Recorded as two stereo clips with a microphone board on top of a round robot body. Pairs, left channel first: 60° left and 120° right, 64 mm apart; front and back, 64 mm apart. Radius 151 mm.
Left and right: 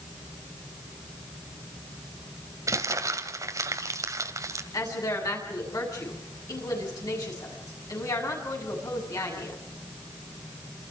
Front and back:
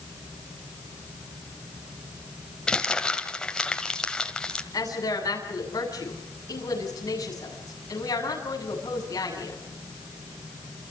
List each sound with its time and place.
2.7 s crumpling: 80° right, 1.8 m
4.7 s a woman speaking: 30° left, 8 m